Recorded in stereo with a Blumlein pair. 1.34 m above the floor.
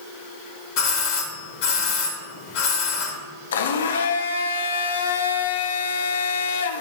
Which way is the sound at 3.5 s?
65° left.